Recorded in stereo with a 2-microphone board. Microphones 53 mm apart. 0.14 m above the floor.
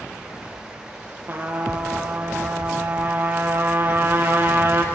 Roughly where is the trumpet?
Right.